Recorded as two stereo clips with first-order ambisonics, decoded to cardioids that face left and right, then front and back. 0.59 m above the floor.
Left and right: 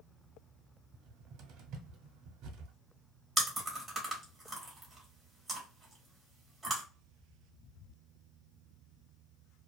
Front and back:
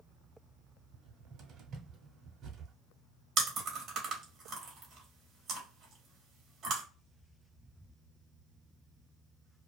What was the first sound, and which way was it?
A cupboard door, 125° right.